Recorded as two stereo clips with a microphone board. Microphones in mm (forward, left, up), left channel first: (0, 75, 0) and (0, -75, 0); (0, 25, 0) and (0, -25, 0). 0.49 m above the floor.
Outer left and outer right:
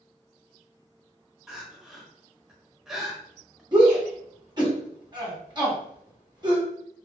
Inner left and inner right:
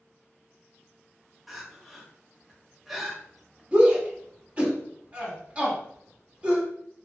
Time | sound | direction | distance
1.5 | crying | 5° right (ahead or behind) | 0.6 m
3.7 | a shout | 30° right (ahead or behind) | 1.1 m